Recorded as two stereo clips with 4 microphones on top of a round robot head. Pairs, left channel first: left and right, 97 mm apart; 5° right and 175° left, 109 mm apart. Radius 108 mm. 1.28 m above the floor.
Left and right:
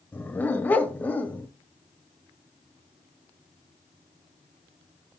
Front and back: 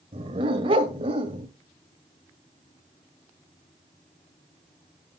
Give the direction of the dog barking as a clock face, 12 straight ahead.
7 o'clock.